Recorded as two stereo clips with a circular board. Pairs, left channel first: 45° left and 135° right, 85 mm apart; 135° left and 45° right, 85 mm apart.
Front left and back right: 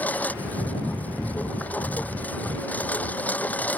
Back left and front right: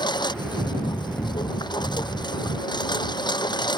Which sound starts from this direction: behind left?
A lawn mower, at 0.0 s.